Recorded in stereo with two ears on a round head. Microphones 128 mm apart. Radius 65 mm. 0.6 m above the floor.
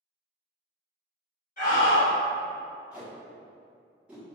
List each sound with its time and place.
1.6 s a scream: 60° left (ahead or behind), 1.6 m
2.9 s tape being pulled: 10° right (ahead or behind), 1.0 m